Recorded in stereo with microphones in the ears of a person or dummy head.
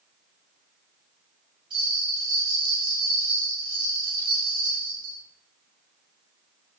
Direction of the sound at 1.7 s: 25° right (ahead or behind).